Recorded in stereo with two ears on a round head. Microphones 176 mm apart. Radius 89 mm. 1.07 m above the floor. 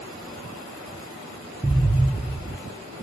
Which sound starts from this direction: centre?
An explosion, at 1.6 s.